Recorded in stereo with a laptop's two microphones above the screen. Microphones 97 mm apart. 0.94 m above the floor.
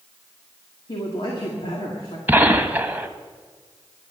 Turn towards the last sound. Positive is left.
turn(degrees=-20)  # may be behind; listen again after turning